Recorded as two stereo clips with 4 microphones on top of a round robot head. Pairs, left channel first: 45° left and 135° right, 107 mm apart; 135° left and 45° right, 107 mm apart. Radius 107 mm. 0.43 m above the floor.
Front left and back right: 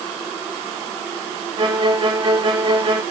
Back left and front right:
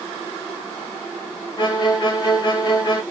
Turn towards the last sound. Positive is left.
turn(degrees=180)